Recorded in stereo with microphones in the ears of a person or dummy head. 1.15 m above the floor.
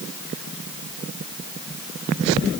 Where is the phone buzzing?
No phone buzzing in this recording.